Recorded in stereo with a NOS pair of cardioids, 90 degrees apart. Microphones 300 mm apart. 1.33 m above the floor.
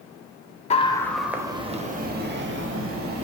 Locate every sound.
0.7 s a scream: 20° left, 0.7 m; by 3.2 s 50° right, 1.5 m